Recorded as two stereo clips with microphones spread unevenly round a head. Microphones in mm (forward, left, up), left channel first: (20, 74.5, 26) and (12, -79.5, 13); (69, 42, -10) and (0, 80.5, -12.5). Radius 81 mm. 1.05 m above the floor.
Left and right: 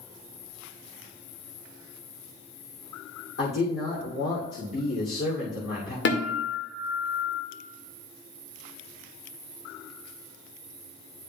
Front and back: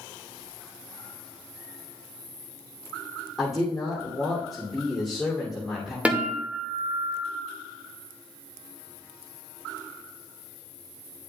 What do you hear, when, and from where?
3.4 s a man speaking: 65° left, 3 m
6.0 s a guitar: 75° left, 2 m